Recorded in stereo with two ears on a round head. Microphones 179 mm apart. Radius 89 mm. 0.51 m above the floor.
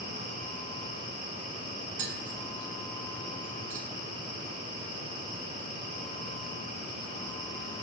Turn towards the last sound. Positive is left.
turn(degrees=-60)  # may be behind; listen again after turning